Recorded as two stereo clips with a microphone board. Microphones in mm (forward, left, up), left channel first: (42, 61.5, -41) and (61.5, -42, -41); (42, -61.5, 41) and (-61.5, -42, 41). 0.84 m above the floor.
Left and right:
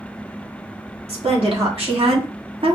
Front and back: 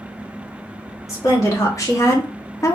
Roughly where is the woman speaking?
Right.